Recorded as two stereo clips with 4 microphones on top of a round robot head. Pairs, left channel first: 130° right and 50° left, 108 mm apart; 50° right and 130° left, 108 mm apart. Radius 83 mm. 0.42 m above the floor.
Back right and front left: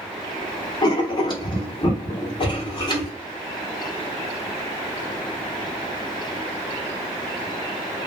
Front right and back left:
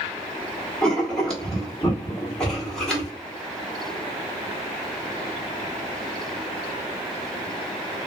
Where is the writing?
130° right, 1.5 m.